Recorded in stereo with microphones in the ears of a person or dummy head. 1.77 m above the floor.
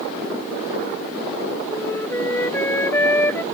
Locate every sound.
1.7 s a flute: 10° left (ahead or behind)